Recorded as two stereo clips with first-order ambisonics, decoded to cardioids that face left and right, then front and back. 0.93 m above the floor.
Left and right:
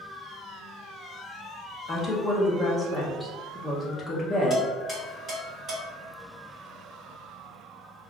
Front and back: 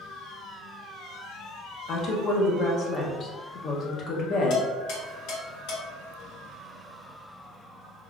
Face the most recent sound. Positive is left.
turn(degrees=-15)